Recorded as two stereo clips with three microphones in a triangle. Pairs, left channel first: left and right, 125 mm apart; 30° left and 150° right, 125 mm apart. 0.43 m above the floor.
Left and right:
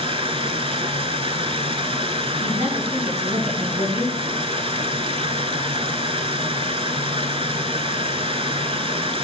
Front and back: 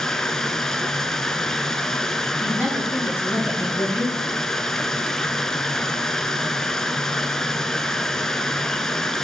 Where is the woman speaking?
75° right, 4 m.